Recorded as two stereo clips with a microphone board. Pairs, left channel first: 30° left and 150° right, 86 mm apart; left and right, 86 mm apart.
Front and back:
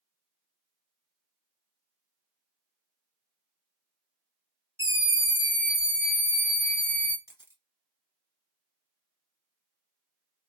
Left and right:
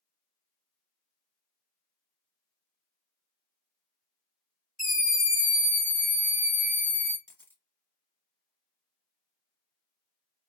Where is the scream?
175° right, 1.7 m; by 7.2 s 25° right, 1.9 m.